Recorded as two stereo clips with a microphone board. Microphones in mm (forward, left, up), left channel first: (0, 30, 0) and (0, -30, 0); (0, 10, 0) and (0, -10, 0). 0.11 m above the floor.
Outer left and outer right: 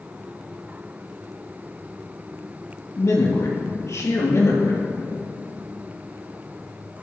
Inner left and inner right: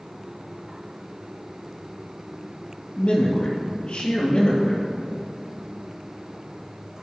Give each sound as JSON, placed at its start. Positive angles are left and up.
{"t": 3.0, "sound": "a man speaking", "side_deg": 55, "distance_m": 3.0}